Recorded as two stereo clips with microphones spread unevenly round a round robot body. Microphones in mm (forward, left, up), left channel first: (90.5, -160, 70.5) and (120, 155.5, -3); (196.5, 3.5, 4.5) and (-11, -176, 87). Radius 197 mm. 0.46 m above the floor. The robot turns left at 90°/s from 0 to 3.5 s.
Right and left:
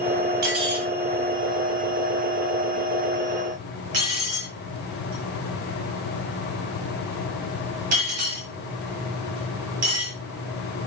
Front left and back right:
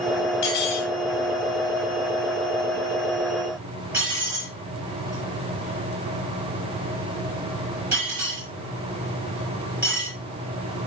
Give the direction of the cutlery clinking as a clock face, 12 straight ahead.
10 o'clock.